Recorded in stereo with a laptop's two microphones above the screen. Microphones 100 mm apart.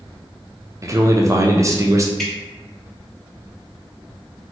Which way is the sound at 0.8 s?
30° right (ahead or behind).